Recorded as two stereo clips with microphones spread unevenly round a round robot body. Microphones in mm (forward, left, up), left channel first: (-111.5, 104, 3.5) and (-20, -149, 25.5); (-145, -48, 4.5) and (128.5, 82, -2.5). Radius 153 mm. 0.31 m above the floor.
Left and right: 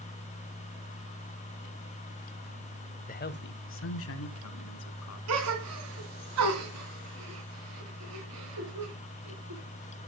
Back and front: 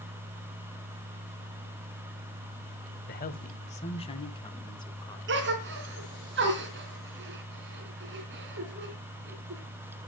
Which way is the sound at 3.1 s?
155° left.